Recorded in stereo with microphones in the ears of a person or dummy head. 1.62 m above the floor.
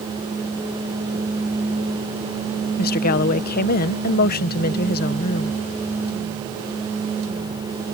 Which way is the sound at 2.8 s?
50° left (ahead or behind).